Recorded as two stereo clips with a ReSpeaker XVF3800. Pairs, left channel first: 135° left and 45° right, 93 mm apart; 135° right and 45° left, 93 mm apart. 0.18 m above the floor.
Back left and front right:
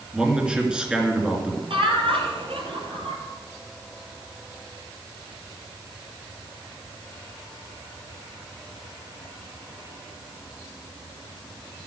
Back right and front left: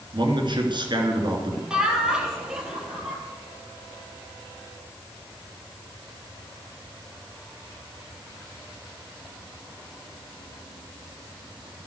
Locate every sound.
0.1 s a man speaking: 35° left, 3 m
1.7 s laughter: 35° right, 3.5 m